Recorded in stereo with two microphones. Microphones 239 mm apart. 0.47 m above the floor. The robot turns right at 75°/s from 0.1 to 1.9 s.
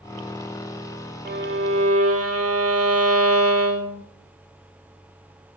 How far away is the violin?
About 0.6 m.